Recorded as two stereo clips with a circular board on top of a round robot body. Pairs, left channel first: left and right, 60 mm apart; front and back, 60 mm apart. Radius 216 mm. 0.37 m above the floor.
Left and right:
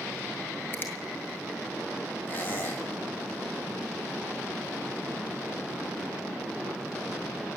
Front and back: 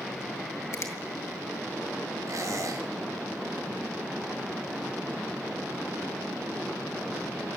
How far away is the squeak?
About 3.5 m.